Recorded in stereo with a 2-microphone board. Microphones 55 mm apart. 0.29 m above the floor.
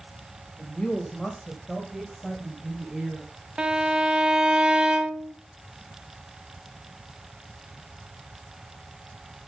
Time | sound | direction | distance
0.6 | a woman speaking | 25° left (ahead or behind) | 1.6 m
3.6 | a violin | 15° right (ahead or behind) | 0.7 m